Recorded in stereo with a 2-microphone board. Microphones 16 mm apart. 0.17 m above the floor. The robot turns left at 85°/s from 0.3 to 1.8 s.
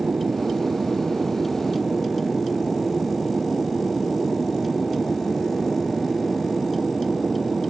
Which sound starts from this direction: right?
An aircraft, at 0.0 s.